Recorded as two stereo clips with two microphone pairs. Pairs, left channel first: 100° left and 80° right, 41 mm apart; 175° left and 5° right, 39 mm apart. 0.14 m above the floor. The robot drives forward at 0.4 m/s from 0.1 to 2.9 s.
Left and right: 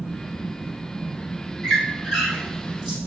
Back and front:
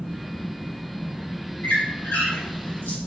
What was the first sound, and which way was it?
A squeak, straight behind.